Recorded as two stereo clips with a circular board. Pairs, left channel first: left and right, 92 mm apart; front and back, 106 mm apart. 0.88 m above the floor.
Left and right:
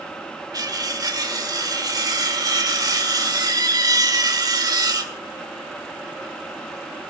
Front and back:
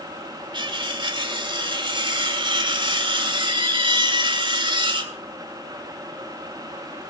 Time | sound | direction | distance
0.5 | cutlery clinking | 135° right | 1.5 m